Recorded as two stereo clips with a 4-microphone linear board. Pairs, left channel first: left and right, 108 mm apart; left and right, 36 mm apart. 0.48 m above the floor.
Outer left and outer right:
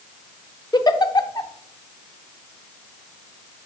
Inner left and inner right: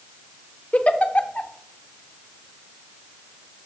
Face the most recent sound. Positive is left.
turn(degrees=40)  # may be behind; listen again after turning